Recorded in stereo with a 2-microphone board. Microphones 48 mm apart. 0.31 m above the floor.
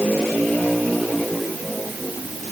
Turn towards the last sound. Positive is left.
No sound to turn to.